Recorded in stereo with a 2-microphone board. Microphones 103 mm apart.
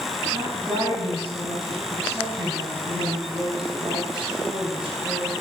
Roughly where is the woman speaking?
Right.